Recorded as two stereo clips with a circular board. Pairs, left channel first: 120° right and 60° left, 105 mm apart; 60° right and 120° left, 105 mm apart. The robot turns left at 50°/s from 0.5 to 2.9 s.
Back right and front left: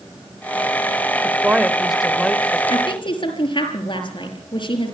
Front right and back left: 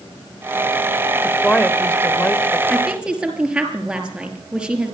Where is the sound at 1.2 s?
10° left, 1.3 m; by 2.6 s 55° right, 1.3 m.